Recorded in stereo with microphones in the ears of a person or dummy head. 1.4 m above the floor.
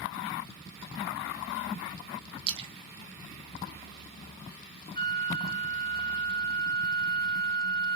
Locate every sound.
2.5 s a splash: 35° right (ahead or behind), 0.8 m
5.0 s a flute: 25° left (ahead or behind), 0.5 m